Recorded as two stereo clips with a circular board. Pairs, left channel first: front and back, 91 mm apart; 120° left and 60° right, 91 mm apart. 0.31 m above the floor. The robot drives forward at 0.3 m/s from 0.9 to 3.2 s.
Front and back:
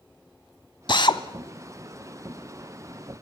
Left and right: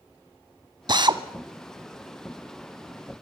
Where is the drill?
25° right, 0.9 m; by 1.2 s 30° right, 0.8 m.